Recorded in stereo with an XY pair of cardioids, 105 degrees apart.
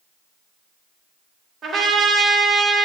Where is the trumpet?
45° right, 3.5 m.